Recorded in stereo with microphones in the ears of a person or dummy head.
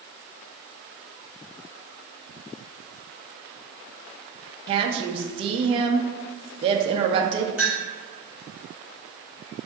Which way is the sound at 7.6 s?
5° right (ahead or behind).